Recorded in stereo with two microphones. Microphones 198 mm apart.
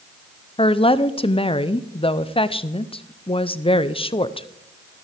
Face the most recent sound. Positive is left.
turn(degrees=30)  # may be behind; listen again after turning